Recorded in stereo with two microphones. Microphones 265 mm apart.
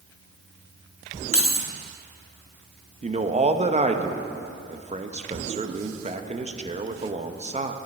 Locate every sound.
1.3 s keys jangling: 55° left (ahead or behind), 0.9 m
3.0 s a man speaking: 25° right (ahead or behind), 0.7 m